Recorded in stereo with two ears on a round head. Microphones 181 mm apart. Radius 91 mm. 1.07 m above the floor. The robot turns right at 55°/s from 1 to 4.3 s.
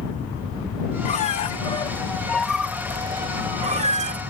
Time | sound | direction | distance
1.1 | a squeak | 100° left | ?